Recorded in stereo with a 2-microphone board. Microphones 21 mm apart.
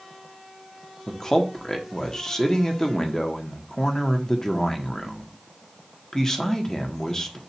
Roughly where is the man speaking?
Left.